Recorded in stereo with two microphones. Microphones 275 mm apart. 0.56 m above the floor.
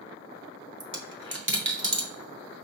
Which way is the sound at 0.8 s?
45° right (ahead or behind).